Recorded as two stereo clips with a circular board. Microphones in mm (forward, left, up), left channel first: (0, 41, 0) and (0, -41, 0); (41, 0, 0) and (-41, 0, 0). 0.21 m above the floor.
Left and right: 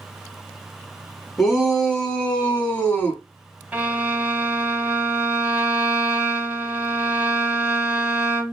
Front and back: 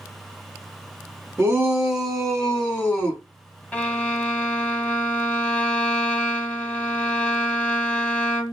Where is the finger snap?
I don't hear a finger snap.